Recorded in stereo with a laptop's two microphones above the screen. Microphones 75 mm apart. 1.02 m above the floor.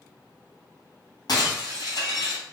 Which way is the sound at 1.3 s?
65° left (ahead or behind).